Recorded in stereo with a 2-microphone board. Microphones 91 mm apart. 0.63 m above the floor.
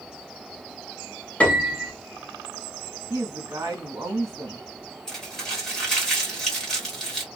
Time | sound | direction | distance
1.4 | a piano | 15° left (ahead or behind) | 0.7 m
3.1 | a woman speaking | 35° right (ahead or behind) | 1.1 m
5.1 | crumpling | 5° left (ahead or behind) | 1.5 m